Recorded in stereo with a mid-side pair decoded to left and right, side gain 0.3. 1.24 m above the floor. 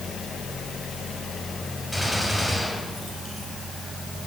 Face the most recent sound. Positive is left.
turn(degrees=-15)